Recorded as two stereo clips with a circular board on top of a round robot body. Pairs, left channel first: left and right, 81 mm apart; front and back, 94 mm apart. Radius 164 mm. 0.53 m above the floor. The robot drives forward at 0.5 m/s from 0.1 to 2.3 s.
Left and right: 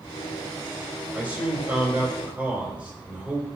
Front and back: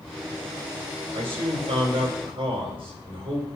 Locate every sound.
1.1 s a man speaking: 160° right, 3.5 m